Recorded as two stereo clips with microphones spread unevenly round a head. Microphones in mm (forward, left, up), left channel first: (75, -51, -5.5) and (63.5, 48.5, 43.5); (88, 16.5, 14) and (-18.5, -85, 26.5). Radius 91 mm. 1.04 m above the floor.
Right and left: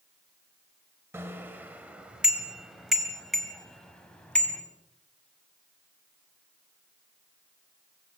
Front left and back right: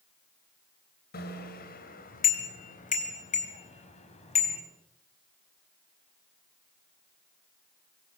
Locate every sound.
1.1 s a bicycle bell: 30° left, 3.5 m; by 4.6 s 5° right, 5.5 m